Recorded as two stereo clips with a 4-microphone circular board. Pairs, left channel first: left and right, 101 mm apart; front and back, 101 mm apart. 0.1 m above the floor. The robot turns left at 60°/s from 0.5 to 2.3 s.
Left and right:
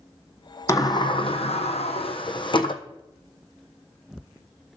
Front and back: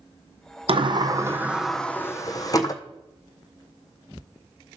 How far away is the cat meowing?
I don't hear a cat meowing.